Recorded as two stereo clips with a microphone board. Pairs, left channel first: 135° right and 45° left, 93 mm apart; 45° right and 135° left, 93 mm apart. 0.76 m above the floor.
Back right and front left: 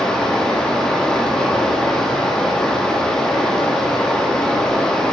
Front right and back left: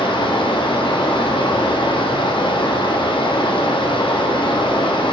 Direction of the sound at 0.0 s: 50° right.